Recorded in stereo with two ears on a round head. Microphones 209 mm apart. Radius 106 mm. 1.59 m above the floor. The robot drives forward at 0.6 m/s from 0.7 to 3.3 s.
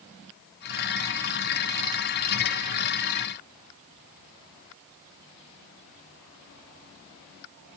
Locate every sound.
Only background noise.